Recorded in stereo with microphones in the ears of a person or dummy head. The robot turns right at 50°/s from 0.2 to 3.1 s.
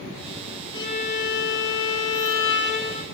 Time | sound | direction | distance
0.7 | a violin | 25° left | 1.7 m